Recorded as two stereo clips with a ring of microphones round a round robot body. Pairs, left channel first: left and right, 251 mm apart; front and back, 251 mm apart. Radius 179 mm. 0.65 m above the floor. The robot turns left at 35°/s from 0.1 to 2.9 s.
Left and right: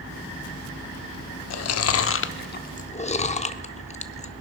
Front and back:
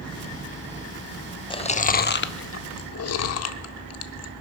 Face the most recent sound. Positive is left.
turn(degrees=25)